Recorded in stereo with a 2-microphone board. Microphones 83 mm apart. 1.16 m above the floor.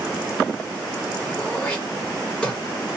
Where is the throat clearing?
15° left (ahead or behind), 1.3 m.